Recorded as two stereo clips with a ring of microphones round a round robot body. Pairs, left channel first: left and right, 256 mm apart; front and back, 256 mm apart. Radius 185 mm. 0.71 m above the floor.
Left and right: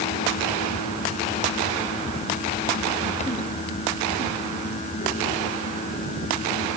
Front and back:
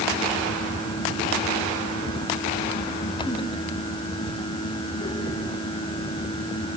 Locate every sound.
Only background noise.